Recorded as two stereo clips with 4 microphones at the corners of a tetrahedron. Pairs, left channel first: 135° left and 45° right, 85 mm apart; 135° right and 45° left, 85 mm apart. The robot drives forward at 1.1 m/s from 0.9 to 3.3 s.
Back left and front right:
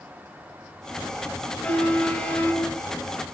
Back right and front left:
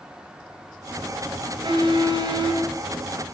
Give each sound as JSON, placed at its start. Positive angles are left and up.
{"t": 1.6, "sound": "an alarm", "azimuth_deg": 55, "distance_m": 8.5}